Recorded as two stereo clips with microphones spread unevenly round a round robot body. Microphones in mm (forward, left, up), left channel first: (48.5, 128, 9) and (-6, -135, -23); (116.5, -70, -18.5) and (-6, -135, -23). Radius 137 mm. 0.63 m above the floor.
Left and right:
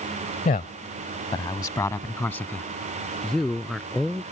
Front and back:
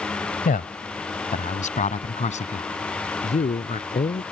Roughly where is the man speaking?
Ahead.